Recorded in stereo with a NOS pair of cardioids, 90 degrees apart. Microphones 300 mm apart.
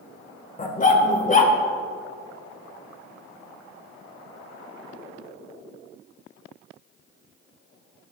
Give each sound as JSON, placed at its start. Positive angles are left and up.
{"t": 0.6, "sound": "a dog barking", "azimuth_deg": 30, "distance_m": 1.8}